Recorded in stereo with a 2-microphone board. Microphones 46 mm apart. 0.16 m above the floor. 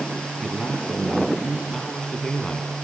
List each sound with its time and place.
0.4 s a man speaking: 20° left (ahead or behind), 4.5 m